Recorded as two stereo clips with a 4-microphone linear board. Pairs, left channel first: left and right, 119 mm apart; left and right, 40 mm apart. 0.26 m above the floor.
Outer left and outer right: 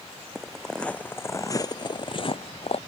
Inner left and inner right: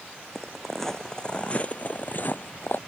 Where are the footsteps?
5° right (ahead or behind); by 2.8 s 60° left (ahead or behind).